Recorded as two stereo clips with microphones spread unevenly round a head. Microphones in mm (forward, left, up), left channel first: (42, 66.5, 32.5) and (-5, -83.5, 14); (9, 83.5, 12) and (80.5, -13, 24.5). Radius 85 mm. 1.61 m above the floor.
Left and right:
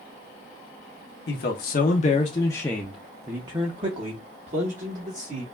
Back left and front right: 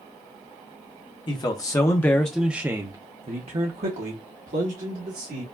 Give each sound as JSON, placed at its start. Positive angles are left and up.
{"t": 1.3, "sound": "a man speaking", "azimuth_deg": 75, "distance_m": 0.9}